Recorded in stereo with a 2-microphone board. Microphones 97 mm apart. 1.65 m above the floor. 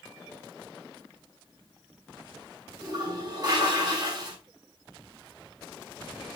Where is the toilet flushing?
45° right (ahead or behind), 5.5 m.